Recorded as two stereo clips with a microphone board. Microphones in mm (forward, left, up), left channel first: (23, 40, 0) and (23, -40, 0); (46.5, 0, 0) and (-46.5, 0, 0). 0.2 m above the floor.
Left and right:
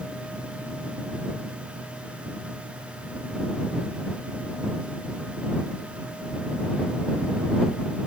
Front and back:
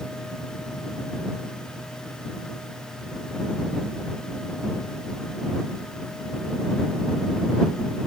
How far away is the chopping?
No chopping in this recording.